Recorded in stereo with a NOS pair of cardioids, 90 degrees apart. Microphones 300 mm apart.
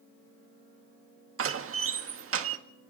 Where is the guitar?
I don't hear a guitar.